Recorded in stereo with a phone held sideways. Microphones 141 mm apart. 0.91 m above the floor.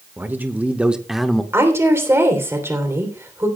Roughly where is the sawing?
I don't hear sawing.